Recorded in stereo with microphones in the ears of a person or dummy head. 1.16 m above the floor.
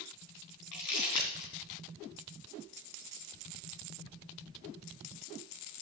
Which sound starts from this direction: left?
Crumpling, at 0.7 s.